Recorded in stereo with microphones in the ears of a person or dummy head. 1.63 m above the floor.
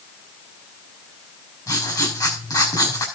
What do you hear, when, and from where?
1.7 s writing: 25° left (ahead or behind), 4 m